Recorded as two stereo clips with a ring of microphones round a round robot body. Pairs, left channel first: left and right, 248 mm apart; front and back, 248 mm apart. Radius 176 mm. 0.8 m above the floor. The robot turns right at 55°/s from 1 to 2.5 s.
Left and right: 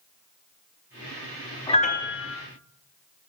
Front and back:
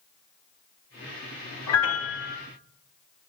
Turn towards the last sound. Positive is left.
turn(degrees=60)